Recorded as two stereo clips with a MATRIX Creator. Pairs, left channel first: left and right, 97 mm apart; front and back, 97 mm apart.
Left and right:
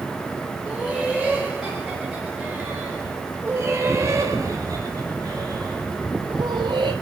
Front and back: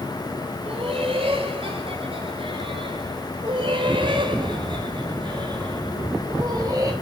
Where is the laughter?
170° left, 4.5 m; by 6.9 s 120° right, 4.5 m.